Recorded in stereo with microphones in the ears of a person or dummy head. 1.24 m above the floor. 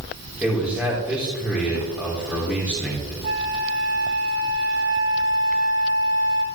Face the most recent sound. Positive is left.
turn(degrees=-30)  # may be behind; listen again after turning